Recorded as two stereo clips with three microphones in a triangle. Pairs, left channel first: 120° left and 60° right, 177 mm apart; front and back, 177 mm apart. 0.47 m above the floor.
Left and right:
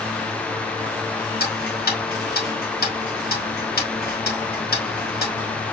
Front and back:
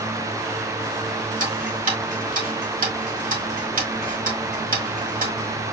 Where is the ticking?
145° left, 1.6 m.